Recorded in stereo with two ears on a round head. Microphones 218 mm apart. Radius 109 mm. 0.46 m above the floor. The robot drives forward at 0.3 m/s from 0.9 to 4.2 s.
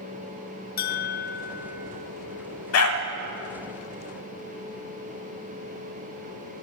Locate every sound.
0.8 s a bell: 40° left (ahead or behind), 0.6 m; by 2.1 s 30° left (ahead or behind), 0.8 m
2.7 s a dog barking: 65° left (ahead or behind), 1.1 m